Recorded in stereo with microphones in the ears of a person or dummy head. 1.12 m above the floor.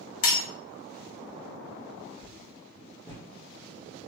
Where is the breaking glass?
75° left (ahead or behind), 1.1 m.